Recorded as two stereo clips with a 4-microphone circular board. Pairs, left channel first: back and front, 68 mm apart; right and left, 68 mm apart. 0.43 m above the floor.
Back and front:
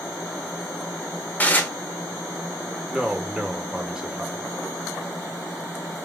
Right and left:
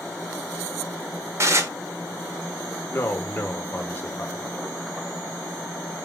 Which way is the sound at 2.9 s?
70° right.